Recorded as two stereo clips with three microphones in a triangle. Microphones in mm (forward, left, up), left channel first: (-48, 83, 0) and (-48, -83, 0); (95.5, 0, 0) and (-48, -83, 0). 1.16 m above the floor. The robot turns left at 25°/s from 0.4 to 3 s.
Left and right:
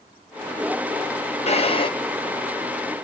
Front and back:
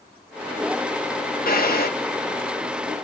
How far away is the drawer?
About 0.8 m.